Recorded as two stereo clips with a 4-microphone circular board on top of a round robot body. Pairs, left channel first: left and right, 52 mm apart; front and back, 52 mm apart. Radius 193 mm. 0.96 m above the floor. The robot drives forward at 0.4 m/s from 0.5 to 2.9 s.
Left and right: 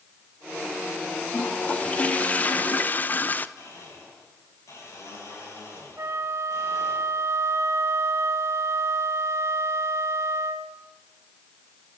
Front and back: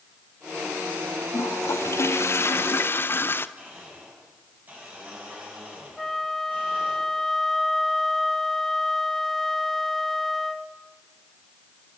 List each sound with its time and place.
1.3 s a toilet flushing: 25° left, 1.6 m; by 3.5 s 40° left, 1.2 m
3.6 s a blender: 120° left, 10 m
6.0 s a flute: 85° right, 1.4 m